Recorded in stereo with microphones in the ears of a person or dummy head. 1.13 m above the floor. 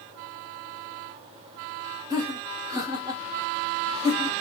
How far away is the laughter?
About 1.2 m.